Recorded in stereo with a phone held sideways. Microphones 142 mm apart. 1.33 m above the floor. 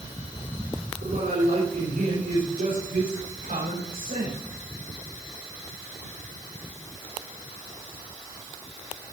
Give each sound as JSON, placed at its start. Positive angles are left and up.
{"t": 1.0, "sound": "a man speaking", "side_deg": -85, "distance_m": 6.0}